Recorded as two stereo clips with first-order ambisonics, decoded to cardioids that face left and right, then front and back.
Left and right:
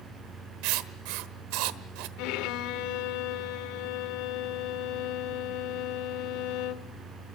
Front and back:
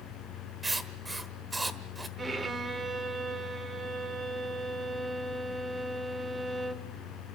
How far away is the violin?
About 1.5 m.